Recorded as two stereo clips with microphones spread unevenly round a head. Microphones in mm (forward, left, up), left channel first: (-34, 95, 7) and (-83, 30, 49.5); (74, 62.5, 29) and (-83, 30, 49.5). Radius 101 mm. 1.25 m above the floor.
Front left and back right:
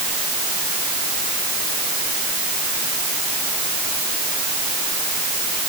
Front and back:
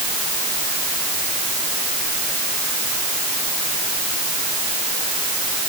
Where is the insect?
I don't hear an insect.